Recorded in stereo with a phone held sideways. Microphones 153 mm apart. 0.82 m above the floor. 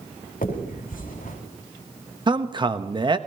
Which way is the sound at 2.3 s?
35° right (ahead or behind).